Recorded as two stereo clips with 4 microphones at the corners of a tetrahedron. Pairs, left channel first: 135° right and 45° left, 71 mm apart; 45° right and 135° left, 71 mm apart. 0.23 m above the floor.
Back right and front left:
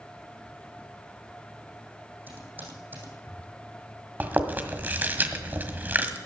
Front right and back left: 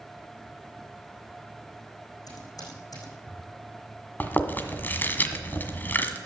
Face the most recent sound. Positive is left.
turn(degrees=0)